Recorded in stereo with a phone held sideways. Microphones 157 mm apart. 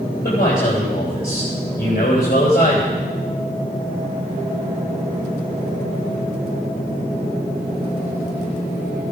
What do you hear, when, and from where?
0.2 s a man speaking: 75° left (ahead or behind), 3.5 m